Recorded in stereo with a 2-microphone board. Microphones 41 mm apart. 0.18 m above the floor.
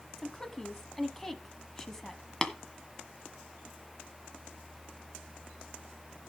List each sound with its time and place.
0.2 s a woman speaking: 10° left (ahead or behind), 1.1 m
2.4 s tapping: 15° left (ahead or behind), 1.5 m